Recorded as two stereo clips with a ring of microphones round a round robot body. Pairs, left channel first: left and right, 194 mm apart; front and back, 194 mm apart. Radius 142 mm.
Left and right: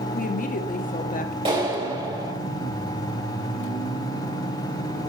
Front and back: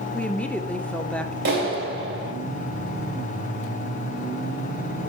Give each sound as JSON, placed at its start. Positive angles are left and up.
{"t": 0.1, "sound": "a woman speaking", "azimuth_deg": 80, "distance_m": 0.9}
{"t": 1.4, "sound": "a clap", "azimuth_deg": -155, "distance_m": 1.9}